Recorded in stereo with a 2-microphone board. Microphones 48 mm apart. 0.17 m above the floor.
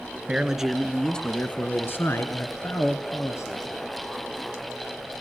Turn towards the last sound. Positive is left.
turn(degrees=70)  # may be behind; listen again after turning